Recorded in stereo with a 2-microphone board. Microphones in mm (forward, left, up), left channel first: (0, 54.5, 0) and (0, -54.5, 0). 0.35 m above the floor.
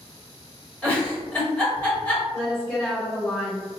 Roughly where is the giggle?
Centre.